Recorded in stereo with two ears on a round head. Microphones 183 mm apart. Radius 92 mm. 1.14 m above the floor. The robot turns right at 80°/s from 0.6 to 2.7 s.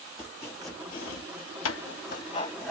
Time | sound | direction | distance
0.2 | chopping | 10° left (ahead or behind) | 1.1 m